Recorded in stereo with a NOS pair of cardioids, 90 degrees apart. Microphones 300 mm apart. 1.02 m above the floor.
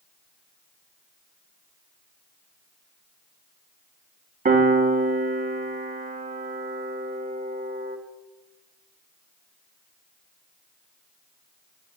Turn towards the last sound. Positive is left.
turn(degrees=-25)